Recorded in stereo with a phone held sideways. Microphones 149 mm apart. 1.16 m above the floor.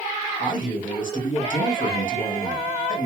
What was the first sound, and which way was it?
A man speaking, 60° left (ahead or behind).